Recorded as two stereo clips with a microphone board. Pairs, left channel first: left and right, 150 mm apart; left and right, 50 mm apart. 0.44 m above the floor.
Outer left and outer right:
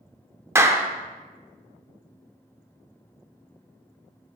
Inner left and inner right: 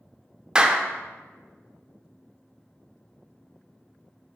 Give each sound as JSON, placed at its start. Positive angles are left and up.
{"t": 0.6, "sound": "a clap", "side_deg": -15, "distance_m": 0.5}